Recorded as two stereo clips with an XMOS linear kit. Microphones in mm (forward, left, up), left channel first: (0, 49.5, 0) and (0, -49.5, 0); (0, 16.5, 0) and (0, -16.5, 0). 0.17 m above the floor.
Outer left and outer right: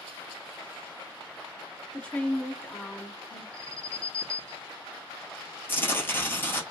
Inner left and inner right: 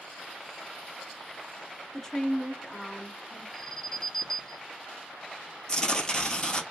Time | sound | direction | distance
1.9 | a woman speaking | 10° left (ahead or behind) | 1.5 m
3.5 | an alarm | 10° left (ahead or behind) | 1.5 m
5.7 | tearing paper | 20° left (ahead or behind) | 1.6 m